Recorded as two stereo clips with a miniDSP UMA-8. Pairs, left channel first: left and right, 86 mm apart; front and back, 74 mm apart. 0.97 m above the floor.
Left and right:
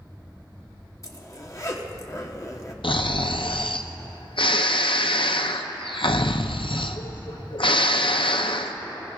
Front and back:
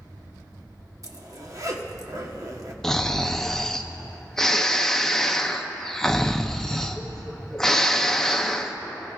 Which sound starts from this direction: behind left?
A zipper, at 1.0 s.